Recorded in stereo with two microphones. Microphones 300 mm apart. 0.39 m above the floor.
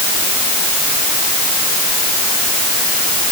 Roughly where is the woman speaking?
No woman speaking in this recording.